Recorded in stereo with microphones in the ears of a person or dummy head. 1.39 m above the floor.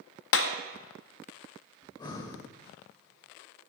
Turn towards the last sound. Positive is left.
turn(degrees=20)  # may be behind; listen again after turning